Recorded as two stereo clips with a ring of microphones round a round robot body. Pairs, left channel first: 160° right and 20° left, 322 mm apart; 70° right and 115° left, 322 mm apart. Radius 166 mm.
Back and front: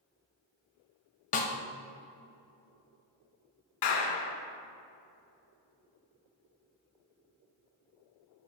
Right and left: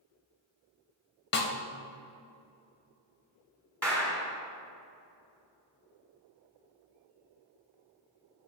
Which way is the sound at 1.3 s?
105° right.